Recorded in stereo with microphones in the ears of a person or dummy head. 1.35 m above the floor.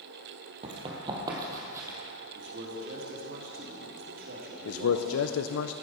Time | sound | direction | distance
0.6 | running footsteps | 30° right (ahead or behind) | 1.9 m
2.4 | a man speaking | 45° right (ahead or behind) | 2.5 m
4.7 | a man speaking | 80° left | 0.6 m